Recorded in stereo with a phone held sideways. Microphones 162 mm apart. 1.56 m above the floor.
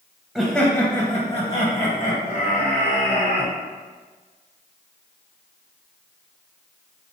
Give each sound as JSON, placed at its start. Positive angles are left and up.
{"t": 0.3, "sound": "laughter", "side_deg": 0, "distance_m": 0.7}